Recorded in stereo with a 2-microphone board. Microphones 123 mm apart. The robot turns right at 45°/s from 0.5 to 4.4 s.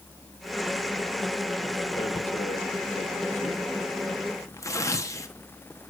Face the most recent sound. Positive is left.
turn(degrees=25)  # may be behind; listen again after turning